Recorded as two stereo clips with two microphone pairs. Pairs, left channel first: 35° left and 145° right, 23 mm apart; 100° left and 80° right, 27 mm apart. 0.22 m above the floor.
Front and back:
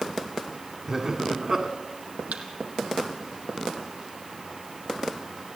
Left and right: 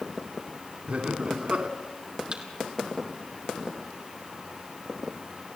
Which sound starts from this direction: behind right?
A thud, at 2.3 s.